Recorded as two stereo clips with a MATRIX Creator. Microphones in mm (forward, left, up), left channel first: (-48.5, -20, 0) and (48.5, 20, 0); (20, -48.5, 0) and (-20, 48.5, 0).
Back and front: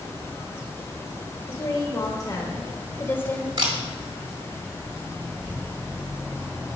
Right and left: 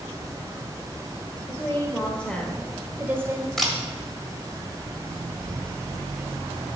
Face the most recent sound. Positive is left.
turn(degrees=20)